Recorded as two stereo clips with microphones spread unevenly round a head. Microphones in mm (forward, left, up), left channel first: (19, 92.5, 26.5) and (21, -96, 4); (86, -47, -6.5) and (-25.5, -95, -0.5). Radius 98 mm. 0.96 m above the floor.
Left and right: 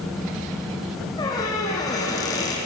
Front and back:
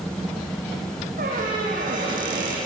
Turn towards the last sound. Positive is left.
turn(degrees=160)